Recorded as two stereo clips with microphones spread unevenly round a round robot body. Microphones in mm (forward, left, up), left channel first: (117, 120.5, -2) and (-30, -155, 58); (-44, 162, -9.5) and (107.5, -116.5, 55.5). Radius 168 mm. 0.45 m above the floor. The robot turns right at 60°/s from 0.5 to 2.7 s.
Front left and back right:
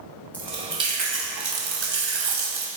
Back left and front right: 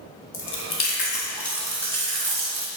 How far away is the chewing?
About 2.5 m.